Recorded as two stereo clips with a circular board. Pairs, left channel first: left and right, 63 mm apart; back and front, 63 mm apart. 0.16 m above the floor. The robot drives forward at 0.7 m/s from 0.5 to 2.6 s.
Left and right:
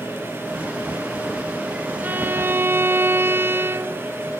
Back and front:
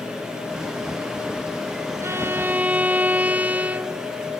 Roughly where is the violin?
Ahead right.